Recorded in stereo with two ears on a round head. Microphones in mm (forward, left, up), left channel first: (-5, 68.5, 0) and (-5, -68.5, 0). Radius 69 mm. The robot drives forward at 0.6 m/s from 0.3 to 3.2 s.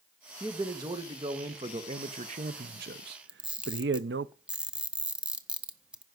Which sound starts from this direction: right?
A man speaking, at 0.4 s.